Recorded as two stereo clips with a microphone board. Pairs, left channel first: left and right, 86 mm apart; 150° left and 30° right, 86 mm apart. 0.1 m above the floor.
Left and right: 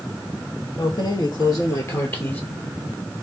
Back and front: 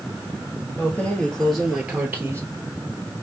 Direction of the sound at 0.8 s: 85° left.